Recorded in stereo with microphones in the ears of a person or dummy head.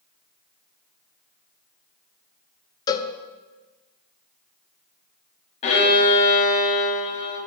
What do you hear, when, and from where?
2.9 s a cowbell: 20° left (ahead or behind), 0.5 m
5.6 s a violin: 35° left (ahead or behind), 1.7 m